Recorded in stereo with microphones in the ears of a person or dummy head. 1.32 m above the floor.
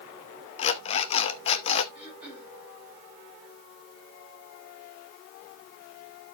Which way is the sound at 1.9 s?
5° right (ahead or behind).